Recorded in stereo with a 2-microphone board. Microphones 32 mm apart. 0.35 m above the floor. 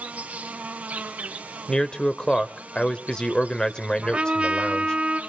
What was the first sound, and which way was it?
An insect, 65° right (ahead or behind).